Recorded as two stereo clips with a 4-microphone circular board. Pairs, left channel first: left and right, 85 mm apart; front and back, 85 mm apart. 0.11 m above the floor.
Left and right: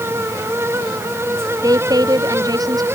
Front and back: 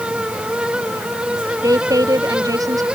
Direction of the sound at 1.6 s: 135° right.